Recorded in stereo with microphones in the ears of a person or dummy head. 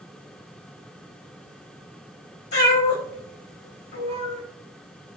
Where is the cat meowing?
55° left (ahead or behind), 1.1 m.